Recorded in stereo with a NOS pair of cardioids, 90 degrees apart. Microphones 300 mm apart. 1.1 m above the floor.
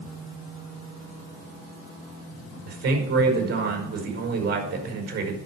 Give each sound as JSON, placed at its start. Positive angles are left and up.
{"t": 2.7, "sound": "a man speaking", "azimuth_deg": -65, "distance_m": 5.0}